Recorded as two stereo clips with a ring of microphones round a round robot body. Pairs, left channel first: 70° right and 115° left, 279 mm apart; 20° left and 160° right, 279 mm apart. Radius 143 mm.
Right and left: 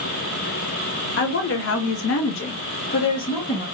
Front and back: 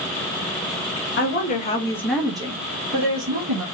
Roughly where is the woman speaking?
Ahead right.